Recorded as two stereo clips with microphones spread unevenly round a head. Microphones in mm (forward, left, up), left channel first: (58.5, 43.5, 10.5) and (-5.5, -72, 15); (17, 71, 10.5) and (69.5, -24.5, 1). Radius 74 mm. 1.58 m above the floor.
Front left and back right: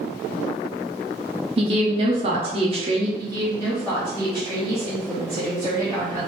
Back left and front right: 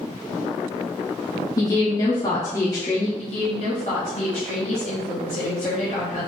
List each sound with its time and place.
1.6 s a woman speaking: 170° right, 0.6 m
3.2 s a woman speaking: 135° left, 1.0 m